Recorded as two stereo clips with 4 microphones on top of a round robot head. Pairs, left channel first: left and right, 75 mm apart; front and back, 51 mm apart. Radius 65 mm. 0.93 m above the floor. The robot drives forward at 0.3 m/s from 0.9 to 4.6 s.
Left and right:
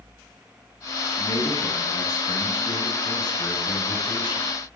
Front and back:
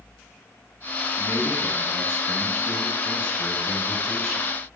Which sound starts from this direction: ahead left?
A man speaking, at 1.1 s.